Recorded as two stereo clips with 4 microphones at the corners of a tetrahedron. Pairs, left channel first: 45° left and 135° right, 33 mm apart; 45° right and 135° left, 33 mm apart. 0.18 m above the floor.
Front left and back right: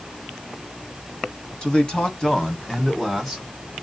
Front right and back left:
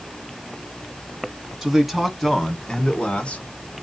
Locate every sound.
1.6 s a man speaking: 80° left, 1.1 m; by 3.5 s 35° right, 1.2 m